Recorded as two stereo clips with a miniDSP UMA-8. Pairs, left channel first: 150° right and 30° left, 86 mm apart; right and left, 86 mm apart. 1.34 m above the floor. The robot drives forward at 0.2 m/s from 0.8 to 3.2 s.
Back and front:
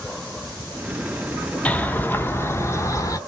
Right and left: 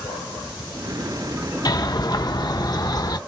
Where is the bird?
80° right, 0.7 m; by 3.2 s 115° right, 0.7 m.